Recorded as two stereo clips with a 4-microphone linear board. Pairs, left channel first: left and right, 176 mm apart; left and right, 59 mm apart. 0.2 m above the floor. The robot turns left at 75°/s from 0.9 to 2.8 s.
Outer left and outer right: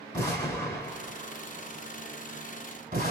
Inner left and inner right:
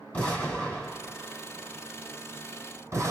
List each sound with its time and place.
0.1 s an explosion: 20° left (ahead or behind), 3.5 m; by 3.1 s 55° right (ahead or behind), 3.5 m